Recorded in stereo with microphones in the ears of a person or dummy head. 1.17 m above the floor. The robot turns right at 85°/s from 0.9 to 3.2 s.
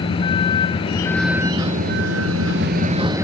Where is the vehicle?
155° left; by 3.2 s 10° right.